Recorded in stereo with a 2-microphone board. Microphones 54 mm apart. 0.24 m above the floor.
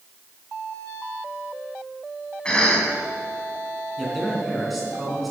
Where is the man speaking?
Centre (ahead or behind), 3 m.